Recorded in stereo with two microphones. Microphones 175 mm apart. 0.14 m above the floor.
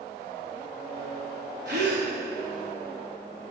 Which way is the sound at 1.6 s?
80° right.